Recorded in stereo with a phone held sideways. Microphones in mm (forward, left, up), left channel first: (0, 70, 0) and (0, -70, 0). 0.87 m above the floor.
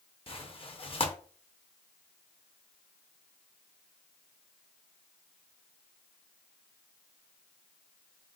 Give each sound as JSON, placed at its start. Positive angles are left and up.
{"t": 0.3, "sound": "tearing paper", "side_deg": 40, "distance_m": 0.6}